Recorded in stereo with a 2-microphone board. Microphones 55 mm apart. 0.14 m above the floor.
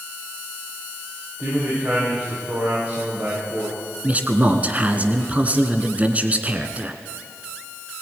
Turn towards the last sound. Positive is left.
turn(degrees=-25)  # may be behind; listen again after turning